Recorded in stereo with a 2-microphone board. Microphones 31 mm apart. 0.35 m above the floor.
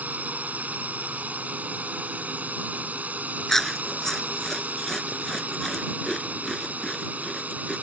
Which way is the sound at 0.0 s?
55° right (ahead or behind).